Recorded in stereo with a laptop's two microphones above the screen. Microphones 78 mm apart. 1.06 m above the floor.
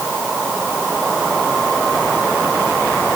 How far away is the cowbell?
I don't hear a cowbell.